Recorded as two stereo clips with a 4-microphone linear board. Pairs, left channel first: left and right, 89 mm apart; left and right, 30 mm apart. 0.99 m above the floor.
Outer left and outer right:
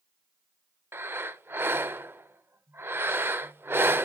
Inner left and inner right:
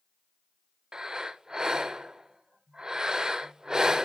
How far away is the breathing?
About 0.7 m.